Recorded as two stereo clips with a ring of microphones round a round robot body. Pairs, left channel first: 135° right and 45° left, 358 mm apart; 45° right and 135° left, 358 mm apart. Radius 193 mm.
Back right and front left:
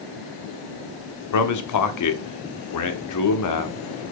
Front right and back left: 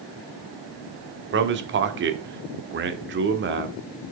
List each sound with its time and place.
1.3 s a man speaking: 170° right, 1.3 m